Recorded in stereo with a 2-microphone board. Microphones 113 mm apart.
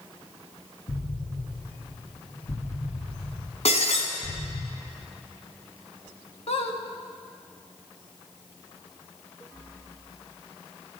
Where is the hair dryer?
I don't hear a hair dryer.